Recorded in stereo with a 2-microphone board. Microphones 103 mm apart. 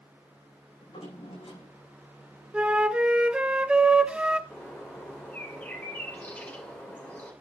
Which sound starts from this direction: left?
A drawer, at 0.8 s.